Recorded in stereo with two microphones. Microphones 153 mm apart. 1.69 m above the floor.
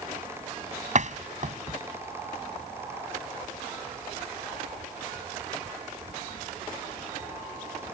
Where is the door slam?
50° right (ahead or behind).